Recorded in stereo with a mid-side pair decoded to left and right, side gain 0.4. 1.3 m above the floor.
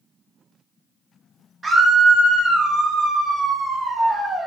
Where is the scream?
40° right, 1.2 m.